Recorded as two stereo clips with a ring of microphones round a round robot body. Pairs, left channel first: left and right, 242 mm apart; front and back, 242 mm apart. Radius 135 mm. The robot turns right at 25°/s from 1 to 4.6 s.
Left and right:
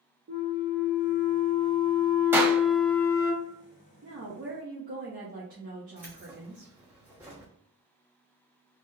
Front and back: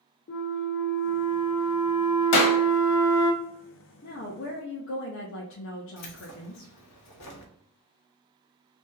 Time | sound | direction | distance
0.3 | a flute | 40° right | 0.8 m
2.3 | a clap | 10° right | 1.1 m
4.0 | a woman speaking | 45° right | 0.9 m
6.0 | keys jangling | 5° right | 1.1 m